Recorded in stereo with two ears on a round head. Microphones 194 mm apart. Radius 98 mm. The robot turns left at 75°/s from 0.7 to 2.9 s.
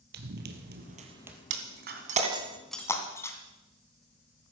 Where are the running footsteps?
50° right (ahead or behind), 2.5 m; by 1.4 s centre (ahead or behind), 2.5 m.